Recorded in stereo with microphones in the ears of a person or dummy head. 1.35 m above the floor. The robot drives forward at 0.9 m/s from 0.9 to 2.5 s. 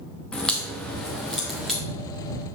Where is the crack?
5° left (ahead or behind), 0.9 m.